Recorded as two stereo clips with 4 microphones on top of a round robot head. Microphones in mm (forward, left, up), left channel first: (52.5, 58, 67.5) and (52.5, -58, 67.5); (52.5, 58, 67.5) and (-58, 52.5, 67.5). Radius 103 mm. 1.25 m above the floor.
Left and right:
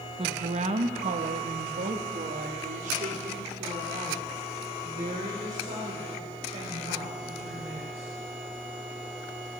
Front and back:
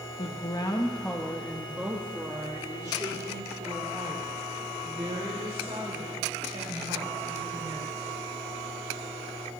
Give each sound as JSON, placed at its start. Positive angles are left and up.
{"t": 0.2, "sound": "a woman speaking", "azimuth_deg": -45, "distance_m": 1.2}